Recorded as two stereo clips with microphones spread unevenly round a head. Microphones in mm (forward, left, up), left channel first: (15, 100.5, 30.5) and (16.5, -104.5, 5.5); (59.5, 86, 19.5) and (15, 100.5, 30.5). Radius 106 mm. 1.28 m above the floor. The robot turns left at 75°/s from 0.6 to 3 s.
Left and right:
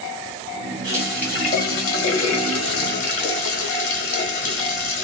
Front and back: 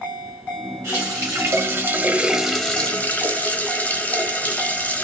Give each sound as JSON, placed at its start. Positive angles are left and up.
{"t": 0.8, "sound": "a running tap", "azimuth_deg": -160, "distance_m": 1.4}